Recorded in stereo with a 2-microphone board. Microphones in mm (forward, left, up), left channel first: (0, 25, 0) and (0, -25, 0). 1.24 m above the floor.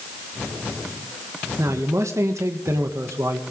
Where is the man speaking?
70° right (ahead or behind), 1.6 m.